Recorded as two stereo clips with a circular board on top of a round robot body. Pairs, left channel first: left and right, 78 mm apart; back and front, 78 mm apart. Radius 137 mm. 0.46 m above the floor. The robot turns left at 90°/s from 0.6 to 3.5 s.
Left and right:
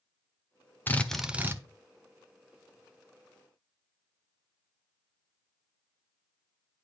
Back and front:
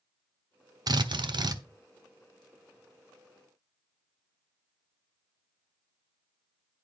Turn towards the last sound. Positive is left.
turn(degrees=150)